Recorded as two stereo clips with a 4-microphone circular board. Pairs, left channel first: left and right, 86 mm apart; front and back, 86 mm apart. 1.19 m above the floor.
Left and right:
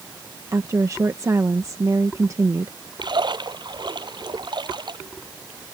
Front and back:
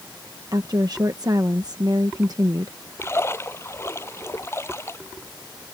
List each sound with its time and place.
0.5 s a woman speaking: 140° right
3.0 s a splash: 60° right